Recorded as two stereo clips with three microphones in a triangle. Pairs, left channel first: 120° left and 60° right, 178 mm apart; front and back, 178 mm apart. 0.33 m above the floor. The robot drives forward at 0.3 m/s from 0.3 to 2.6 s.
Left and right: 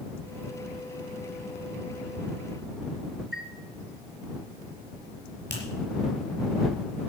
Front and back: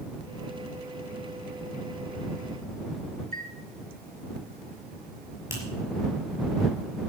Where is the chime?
150° right, 2.5 m.